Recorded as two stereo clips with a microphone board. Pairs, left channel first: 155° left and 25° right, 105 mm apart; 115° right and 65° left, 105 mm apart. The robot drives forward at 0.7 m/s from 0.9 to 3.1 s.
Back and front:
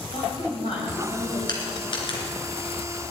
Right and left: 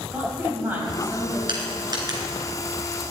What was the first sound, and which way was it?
A woman speaking, 140° left.